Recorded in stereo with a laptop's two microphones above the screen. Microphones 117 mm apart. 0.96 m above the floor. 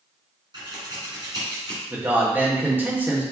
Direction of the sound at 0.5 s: 40° right (ahead or behind).